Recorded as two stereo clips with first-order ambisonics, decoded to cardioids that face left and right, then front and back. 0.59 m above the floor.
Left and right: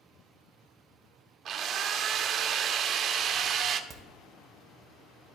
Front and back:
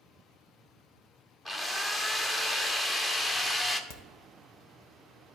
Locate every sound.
1.4 s a drill: 70° right, 0.6 m
3.9 s a crack: 10° right, 1.2 m